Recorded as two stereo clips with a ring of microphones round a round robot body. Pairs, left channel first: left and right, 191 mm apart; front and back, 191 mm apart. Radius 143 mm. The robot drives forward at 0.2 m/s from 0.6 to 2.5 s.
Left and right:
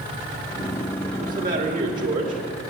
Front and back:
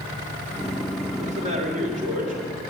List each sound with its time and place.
1.2 s a man speaking: 130° right, 1.8 m; by 2.4 s 135° right, 2.0 m